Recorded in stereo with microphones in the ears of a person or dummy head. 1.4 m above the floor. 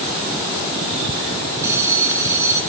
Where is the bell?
15° right (ahead or behind), 2.5 m.